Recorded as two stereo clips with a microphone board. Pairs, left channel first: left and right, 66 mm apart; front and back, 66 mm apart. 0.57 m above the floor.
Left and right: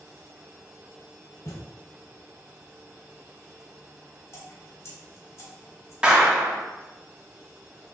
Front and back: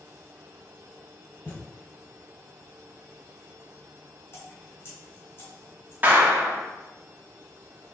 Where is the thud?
55° left, 0.9 m.